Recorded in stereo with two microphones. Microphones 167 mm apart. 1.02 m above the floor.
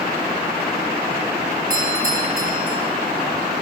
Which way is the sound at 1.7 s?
65° right (ahead or behind).